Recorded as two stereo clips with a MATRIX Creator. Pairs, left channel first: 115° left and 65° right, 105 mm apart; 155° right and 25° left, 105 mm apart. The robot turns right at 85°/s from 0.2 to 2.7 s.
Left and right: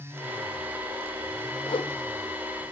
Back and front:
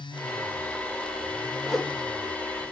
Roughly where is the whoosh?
Left.